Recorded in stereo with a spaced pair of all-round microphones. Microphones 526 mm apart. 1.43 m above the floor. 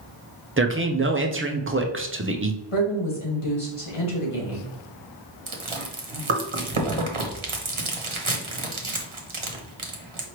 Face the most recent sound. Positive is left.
turn(degrees=-70)  # may be behind; listen again after turning